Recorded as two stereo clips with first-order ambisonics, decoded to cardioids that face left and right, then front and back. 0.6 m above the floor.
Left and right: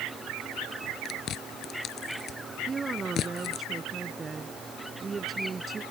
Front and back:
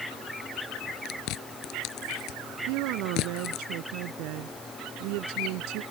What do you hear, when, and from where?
1.1 s chewing: 35° left
2.7 s a woman speaking: 165° right